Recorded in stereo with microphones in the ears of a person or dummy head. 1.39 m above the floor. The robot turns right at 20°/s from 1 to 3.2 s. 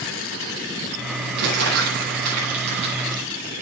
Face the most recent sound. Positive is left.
turn(degrees=-30)  # may be behind; listen again after turning